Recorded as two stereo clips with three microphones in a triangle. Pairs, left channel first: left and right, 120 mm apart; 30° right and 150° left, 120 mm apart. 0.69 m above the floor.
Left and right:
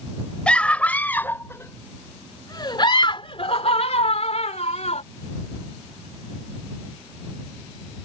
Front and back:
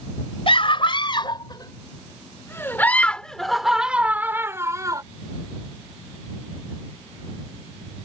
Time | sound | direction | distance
0.5 | a scream | 10° left | ?